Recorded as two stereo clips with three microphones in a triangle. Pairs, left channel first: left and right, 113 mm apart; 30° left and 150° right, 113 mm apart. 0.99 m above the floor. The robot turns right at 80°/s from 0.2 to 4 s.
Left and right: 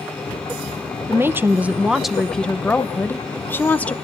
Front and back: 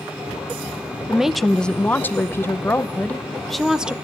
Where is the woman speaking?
80° right, 0.7 m; by 3.9 s 145° left, 0.7 m.